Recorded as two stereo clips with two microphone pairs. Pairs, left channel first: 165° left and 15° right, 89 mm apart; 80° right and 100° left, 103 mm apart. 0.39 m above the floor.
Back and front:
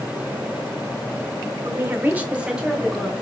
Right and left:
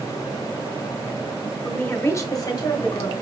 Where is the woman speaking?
15° right, 0.9 m; by 3.1 s 105° right, 1.3 m.